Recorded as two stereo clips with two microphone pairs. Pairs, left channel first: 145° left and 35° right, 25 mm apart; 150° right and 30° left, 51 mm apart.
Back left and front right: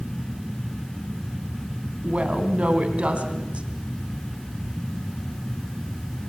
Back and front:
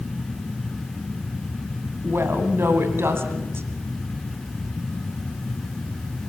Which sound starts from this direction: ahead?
A woman speaking, at 2.0 s.